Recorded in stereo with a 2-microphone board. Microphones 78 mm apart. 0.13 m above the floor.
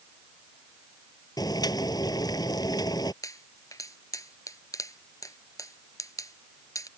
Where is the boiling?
60° left (ahead or behind).